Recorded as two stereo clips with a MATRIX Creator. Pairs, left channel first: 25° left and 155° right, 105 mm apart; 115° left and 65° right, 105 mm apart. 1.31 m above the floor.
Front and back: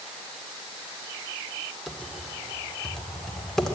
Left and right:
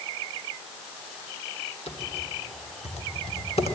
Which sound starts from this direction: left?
Typing on a keyboard, at 1.9 s.